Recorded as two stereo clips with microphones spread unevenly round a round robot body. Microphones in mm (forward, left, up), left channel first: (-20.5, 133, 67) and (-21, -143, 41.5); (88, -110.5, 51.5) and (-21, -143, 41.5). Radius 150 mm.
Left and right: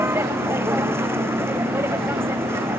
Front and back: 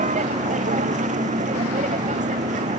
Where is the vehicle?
170° right.